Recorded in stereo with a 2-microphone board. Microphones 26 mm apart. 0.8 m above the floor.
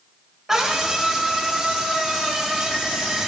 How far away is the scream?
About 4.5 m.